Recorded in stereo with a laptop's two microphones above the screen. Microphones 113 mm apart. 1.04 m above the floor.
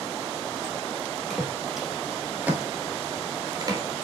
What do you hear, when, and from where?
1.3 s footsteps: centre (ahead or behind), 1.8 m; by 3.8 s 35° right (ahead or behind), 1.2 m